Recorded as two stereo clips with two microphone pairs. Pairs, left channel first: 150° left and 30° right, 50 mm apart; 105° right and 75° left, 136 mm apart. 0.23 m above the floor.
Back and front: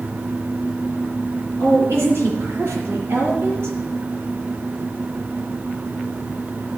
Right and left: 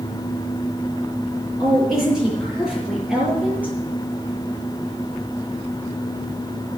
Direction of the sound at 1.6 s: 15° right.